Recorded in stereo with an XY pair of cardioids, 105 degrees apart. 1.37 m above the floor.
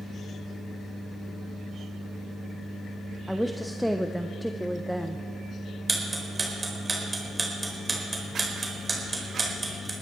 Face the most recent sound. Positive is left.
turn(degrees=-25)